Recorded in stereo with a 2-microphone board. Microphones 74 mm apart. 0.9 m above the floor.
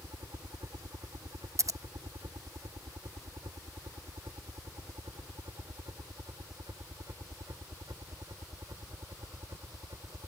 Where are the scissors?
50° right (ahead or behind).